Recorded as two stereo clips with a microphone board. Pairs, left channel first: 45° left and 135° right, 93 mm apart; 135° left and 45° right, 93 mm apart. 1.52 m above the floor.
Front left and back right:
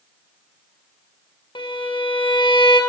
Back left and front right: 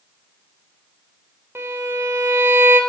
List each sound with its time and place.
1.6 s a violin: 20° left, 1.0 m